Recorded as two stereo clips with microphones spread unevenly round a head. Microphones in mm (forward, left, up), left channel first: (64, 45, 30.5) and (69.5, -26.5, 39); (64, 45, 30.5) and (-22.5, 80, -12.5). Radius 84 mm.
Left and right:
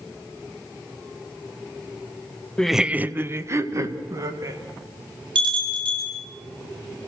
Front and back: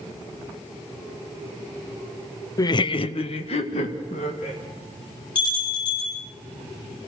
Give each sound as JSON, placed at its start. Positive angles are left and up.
{"t": 2.6, "sound": "laughter", "azimuth_deg": 15, "distance_m": 0.6}
{"t": 5.3, "sound": "a bell", "azimuth_deg": -85, "distance_m": 7.0}